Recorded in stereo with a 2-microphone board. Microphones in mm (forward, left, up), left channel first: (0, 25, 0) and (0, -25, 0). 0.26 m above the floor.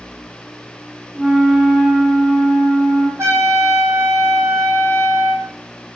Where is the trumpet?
75° right (ahead or behind), 4 m.